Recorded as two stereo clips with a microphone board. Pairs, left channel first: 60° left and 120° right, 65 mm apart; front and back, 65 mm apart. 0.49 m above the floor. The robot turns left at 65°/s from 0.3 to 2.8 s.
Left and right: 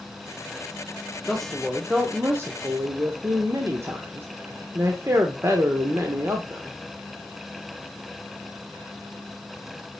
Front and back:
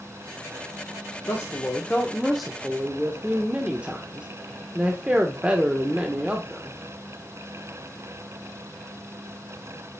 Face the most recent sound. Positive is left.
turn(degrees=-115)